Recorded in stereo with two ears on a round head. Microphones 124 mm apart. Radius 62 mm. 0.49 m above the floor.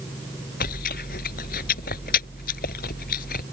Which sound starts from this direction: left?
Chewing, at 0.6 s.